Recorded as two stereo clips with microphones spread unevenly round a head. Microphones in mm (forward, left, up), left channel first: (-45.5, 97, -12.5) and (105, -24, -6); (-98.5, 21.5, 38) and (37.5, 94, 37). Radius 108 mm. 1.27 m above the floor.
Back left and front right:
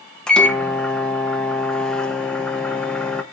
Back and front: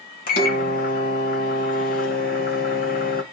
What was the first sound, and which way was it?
A microwave, 130° right.